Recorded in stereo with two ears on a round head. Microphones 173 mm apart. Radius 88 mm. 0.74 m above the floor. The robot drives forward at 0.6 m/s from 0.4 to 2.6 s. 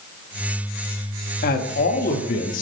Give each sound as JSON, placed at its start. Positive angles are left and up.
{"t": 1.4, "sound": "a man speaking", "side_deg": 45, "distance_m": 1.1}